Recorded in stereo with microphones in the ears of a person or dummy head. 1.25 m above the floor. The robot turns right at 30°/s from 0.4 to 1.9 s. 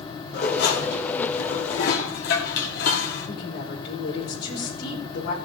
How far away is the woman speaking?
About 4 m.